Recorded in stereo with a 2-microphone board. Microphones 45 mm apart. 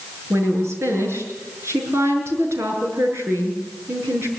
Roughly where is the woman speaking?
Right.